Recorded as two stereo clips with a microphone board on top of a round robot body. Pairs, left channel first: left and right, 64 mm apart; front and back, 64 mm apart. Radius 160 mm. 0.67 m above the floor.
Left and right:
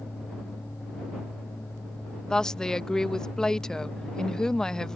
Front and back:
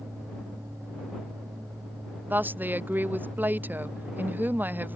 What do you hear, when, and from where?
2.3 s a woman speaking: 160° left